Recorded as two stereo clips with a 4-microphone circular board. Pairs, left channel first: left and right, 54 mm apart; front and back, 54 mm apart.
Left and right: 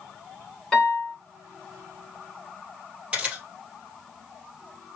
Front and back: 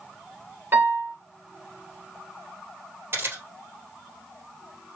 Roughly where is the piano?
Behind.